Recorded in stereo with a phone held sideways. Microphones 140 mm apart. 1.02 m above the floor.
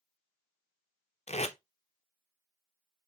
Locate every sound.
1.3 s tape being pulled: 55° left (ahead or behind), 0.5 m